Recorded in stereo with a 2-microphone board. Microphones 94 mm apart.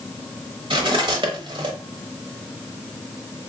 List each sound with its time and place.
0.7 s cutlery clinking: 60° right (ahead or behind), 1.0 m